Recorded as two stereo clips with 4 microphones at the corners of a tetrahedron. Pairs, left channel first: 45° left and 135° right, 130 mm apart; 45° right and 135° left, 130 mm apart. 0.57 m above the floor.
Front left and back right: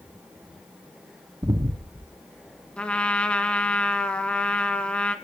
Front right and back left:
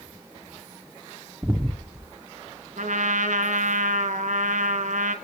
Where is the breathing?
160° right, 0.9 m.